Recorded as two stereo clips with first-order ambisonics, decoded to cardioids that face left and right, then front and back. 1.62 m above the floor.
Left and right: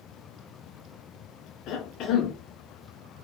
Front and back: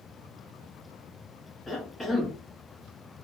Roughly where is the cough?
Left.